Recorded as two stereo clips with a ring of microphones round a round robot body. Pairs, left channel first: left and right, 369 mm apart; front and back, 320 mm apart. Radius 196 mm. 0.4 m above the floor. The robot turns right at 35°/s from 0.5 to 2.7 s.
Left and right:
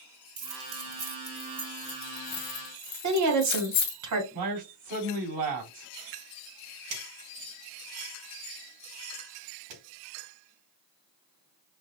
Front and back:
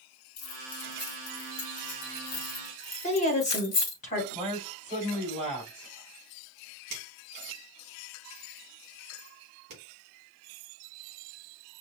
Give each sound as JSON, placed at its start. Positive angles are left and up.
{"t": 0.4, "sound": "keys jangling", "azimuth_deg": -45, "distance_m": 1.7}
{"t": 3.0, "sound": "a woman speaking", "azimuth_deg": -65, "distance_m": 1.5}
{"t": 4.3, "sound": "a man speaking", "azimuth_deg": -110, "distance_m": 3.0}
{"t": 6.9, "sound": "a finger snap", "azimuth_deg": -120, "distance_m": 3.5}